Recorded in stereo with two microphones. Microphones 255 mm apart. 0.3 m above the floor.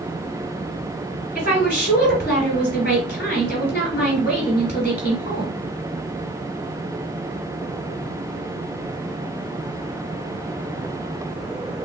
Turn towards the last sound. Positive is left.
turn(degrees=40)  # may be behind; listen again after turning